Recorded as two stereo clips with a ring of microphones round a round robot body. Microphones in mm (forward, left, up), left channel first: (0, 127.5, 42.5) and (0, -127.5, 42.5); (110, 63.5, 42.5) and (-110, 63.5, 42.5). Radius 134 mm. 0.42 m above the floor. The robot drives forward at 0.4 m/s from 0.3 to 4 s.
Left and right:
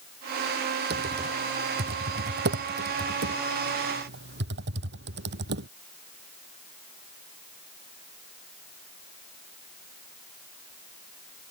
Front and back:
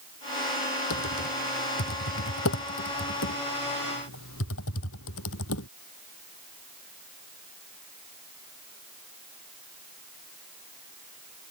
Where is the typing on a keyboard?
35° right; by 5.7 s 40° right.